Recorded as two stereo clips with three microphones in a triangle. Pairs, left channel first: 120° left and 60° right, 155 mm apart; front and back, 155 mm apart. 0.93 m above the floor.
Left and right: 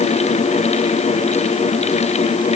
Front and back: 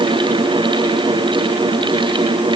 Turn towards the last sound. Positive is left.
No sound to turn to.